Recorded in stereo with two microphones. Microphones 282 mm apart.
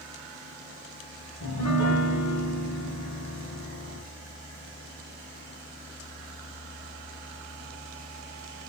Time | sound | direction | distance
1.4 | a piano | 80° left | 2.5 m